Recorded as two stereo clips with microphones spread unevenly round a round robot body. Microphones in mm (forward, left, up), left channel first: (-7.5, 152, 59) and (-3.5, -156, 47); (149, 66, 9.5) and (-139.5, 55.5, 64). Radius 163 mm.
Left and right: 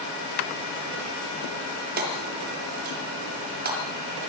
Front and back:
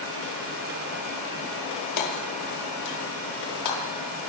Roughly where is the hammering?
Ahead right.